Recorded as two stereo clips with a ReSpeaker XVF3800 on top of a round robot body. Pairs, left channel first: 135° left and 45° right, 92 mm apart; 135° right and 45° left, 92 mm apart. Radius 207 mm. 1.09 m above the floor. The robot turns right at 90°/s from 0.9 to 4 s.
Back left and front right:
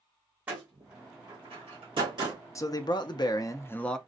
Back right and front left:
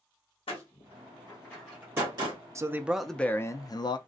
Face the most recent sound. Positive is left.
turn(degrees=-140)